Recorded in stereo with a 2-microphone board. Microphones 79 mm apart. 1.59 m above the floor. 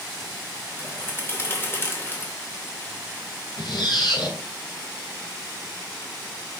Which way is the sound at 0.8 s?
30° left (ahead or behind).